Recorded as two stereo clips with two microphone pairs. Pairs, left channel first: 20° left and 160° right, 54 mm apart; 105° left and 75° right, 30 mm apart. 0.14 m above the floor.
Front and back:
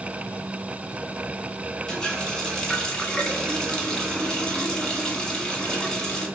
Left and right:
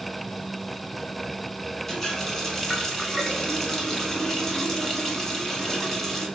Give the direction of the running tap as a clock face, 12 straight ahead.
9 o'clock.